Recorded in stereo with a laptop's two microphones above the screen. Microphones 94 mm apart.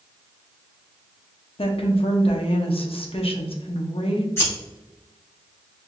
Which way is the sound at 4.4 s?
25° left (ahead or behind).